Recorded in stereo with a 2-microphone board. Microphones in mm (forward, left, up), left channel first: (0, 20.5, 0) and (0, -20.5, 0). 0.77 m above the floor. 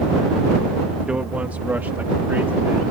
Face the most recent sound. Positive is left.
turn(degrees=-65)  # may be behind; listen again after turning